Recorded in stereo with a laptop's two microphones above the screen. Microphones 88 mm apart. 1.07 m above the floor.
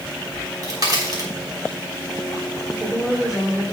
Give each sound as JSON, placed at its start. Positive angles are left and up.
{"t": 0.3, "sound": "a crack", "side_deg": -50, "distance_m": 3.5}
{"t": 2.7, "sound": "a woman speaking", "side_deg": -5, "distance_m": 3.0}